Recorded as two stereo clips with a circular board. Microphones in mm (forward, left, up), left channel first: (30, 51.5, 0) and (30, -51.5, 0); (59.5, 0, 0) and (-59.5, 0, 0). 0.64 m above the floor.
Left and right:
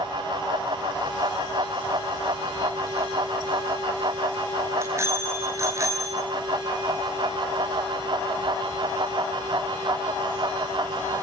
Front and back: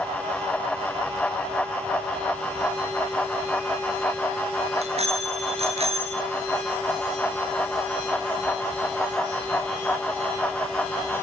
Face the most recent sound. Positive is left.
turn(degrees=-145)